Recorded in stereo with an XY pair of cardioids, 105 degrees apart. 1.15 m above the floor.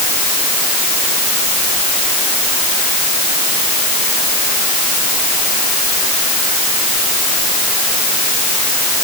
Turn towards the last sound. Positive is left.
No sound to turn to.